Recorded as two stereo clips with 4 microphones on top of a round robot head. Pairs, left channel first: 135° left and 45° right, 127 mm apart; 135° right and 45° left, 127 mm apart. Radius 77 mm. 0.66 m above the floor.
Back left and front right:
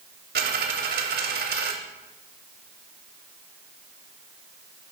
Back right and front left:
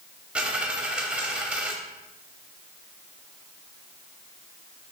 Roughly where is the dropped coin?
Ahead right.